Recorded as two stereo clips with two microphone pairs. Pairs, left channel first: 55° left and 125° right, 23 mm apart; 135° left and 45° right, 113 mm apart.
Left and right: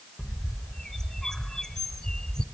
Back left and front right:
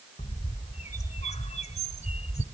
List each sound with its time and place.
0.2 s a bird: 130° left, 1.1 m